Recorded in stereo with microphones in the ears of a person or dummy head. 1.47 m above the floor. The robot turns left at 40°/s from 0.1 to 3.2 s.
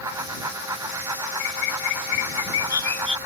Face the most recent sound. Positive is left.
turn(degrees=10)